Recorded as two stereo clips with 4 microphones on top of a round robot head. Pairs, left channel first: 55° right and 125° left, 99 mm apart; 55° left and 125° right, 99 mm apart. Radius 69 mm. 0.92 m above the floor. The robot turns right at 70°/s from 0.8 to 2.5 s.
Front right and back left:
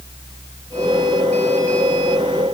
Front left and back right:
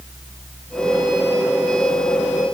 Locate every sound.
Only background noise.